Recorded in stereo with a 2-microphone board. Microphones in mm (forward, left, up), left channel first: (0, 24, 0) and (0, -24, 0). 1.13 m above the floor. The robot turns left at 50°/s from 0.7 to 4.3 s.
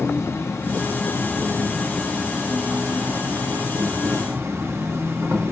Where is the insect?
70° left, 1.0 m; by 5.5 s 110° right, 1.0 m.